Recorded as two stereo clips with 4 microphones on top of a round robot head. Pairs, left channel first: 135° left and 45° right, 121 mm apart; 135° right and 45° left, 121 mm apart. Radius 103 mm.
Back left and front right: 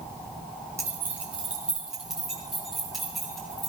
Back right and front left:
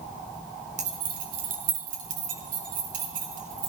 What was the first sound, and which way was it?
Keys jangling, 20° left.